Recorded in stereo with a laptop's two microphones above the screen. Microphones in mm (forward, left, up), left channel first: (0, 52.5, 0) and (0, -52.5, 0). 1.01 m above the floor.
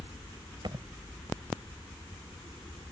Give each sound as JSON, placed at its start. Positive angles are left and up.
{"t": 0.6, "sound": "a thud", "side_deg": -50}